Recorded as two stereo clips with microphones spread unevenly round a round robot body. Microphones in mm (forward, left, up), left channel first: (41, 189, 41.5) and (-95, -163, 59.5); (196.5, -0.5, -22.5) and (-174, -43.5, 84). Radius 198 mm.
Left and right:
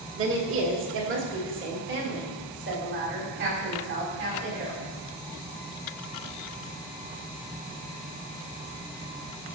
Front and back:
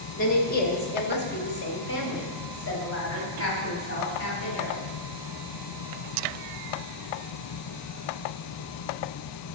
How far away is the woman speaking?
About 1.7 m.